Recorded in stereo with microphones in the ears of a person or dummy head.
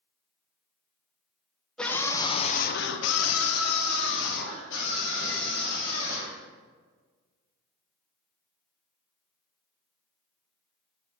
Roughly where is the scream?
Centre.